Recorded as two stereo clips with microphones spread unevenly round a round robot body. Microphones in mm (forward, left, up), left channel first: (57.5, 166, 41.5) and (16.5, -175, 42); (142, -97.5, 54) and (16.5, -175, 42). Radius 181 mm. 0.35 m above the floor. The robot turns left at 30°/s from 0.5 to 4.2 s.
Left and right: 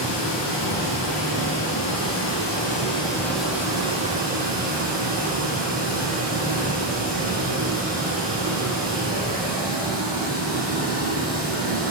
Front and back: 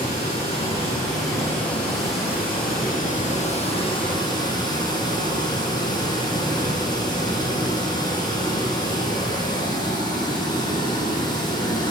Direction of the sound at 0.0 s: 80° left.